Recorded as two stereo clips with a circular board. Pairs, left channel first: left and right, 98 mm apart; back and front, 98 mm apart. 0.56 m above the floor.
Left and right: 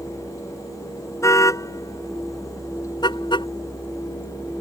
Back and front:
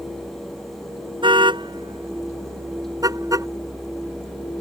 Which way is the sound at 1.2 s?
30° left.